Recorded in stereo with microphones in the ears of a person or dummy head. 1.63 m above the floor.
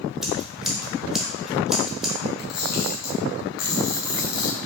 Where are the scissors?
Centre (ahead or behind), 0.6 m.